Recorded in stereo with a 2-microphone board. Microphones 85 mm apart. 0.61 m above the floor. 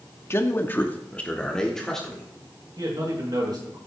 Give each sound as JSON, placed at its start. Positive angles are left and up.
{"t": 0.3, "sound": "a man speaking", "side_deg": 30, "distance_m": 1.0}
{"t": 2.8, "sound": "a man speaking", "side_deg": -60, "distance_m": 6.5}